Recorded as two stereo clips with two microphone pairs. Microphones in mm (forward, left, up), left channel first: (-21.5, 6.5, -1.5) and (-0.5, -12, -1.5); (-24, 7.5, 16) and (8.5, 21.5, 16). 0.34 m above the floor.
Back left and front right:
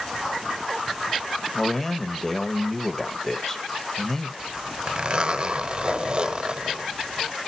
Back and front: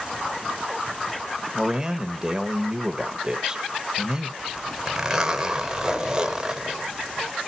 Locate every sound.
1.6 s a man speaking: 75° left, 1.0 m
4.4 s a zipper: 35° right, 1.1 m